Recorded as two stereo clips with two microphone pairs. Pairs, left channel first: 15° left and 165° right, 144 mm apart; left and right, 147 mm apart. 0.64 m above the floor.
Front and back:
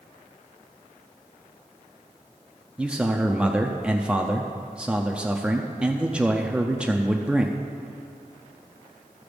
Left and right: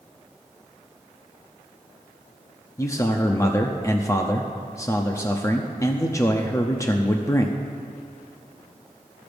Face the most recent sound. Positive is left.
turn(degrees=120)